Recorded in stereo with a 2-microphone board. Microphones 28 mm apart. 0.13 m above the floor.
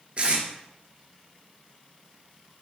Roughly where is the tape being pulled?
Right.